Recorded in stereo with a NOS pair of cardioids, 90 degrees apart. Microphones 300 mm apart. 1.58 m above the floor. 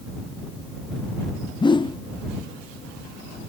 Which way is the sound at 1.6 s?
15° left.